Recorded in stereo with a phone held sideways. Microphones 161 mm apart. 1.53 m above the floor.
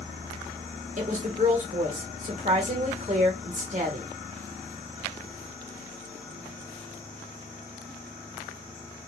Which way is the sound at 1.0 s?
50° right (ahead or behind).